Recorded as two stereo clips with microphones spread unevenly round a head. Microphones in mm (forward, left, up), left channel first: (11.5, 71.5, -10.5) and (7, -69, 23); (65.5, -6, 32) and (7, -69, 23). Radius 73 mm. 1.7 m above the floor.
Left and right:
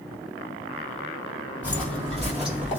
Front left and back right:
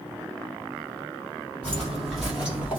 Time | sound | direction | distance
1.6 | footsteps | 5° right | 1.9 m